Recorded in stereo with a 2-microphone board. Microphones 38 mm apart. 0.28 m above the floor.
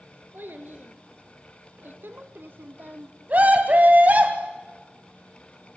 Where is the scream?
45° right (ahead or behind), 2.5 m.